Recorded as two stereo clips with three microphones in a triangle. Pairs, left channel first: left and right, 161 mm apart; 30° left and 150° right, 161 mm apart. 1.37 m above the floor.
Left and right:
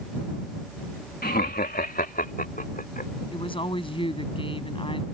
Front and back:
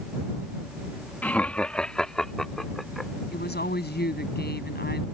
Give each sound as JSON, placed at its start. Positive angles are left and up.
{"t": 1.2, "sound": "laughter", "azimuth_deg": 110}
{"t": 3.3, "sound": "a woman speaking", "azimuth_deg": 35}